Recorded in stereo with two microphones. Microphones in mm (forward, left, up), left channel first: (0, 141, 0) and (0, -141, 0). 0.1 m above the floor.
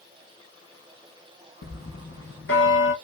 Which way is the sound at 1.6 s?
45° left (ahead or behind).